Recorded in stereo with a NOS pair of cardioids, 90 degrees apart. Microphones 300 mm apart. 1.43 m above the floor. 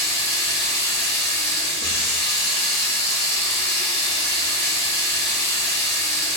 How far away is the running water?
About 1.7 m.